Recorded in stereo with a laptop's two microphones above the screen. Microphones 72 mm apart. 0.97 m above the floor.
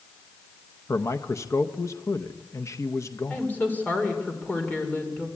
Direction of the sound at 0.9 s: 40° left (ahead or behind).